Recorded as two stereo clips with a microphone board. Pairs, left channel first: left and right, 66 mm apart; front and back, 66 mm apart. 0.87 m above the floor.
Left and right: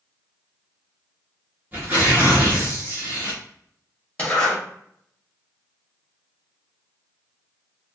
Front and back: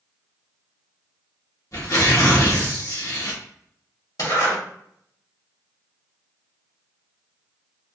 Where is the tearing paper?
30° right, 1.3 m.